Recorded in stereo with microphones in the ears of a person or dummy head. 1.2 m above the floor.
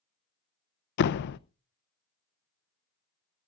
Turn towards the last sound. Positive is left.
turn(degrees=55)  # may be behind; listen again after turning